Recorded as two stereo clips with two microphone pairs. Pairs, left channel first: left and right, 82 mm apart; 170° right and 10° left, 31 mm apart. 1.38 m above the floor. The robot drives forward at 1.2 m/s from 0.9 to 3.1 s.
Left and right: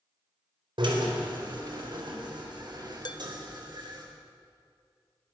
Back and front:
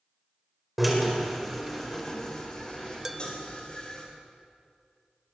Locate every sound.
0.8 s a drill: 80° right, 4.5 m; by 4.0 s 115° right, 4.5 m
3.0 s dishes clattering: 85° left, 0.9 m; by 3.2 s 90° left, 0.9 m